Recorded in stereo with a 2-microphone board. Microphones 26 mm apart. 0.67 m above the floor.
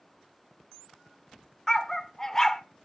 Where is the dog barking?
15° left (ahead or behind), 0.6 m.